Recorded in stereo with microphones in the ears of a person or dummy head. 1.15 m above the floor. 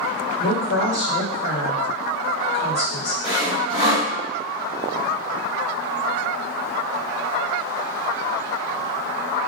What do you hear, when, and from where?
0.4 s a woman speaking: 50° left (ahead or behind), 1.6 m
3.2 s sawing: 15° right (ahead or behind), 1.3 m